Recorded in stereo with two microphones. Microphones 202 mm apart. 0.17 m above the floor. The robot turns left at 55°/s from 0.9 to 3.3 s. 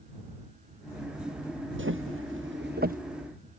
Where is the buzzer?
I don't hear a buzzer.